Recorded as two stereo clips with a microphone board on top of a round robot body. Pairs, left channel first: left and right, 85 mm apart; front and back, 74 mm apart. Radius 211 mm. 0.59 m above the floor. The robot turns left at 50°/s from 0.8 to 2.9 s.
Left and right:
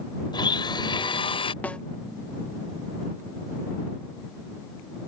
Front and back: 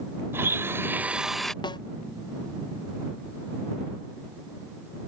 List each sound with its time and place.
0.3 s a blender: 125° left; by 1.5 s 85° left
1.6 s a snare drum: 20° left; by 1.8 s 10° left